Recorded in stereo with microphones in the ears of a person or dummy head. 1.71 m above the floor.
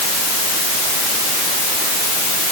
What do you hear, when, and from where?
Only background noise.